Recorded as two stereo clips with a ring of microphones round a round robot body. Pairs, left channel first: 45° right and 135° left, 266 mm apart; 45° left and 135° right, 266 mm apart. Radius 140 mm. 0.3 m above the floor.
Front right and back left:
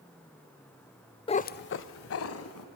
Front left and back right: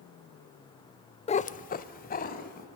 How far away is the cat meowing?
About 0.5 m.